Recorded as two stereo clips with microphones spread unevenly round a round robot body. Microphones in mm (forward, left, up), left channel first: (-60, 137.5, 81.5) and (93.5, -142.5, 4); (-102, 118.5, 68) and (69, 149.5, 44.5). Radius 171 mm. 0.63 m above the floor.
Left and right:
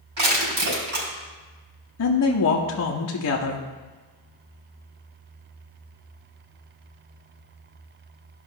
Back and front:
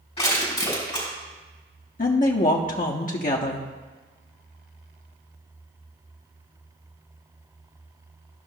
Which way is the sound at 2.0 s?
160° left.